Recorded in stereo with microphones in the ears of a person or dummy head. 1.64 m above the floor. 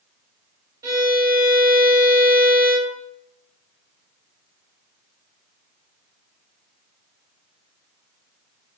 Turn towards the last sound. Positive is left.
turn(degrees=-20)  # may be behind; listen again after turning